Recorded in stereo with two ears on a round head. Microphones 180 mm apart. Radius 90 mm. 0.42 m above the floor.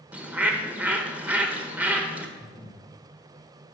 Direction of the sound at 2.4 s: 20° left (ahead or behind).